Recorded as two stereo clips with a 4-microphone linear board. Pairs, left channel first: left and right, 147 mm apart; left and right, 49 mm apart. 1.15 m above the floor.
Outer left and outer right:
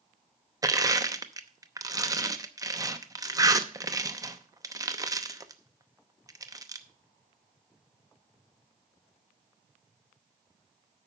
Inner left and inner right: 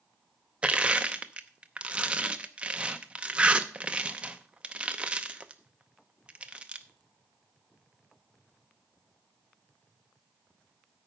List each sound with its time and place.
0.6 s crushing: 25° right (ahead or behind), 0.7 m